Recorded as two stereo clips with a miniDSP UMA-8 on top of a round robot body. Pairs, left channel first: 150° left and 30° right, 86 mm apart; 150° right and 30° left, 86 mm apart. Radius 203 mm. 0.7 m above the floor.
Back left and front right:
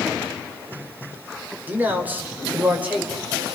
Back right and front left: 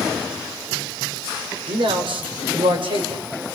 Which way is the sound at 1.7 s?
40° left.